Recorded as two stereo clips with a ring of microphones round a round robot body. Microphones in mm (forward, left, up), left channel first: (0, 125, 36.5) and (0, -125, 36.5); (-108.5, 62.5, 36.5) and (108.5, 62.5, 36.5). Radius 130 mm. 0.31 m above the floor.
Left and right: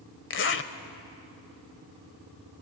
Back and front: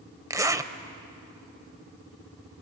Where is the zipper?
70° left, 1.2 m.